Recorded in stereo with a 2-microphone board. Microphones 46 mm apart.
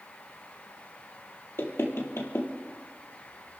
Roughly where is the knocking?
Left.